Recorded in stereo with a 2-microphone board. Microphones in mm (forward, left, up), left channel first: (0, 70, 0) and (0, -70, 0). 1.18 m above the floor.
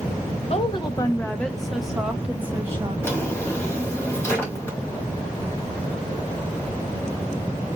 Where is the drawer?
20° left (ahead or behind), 1.6 m.